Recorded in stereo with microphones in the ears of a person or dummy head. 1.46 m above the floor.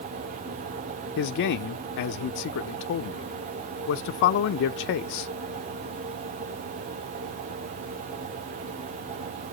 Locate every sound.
1.2 s a man speaking: 60° left (ahead or behind), 0.6 m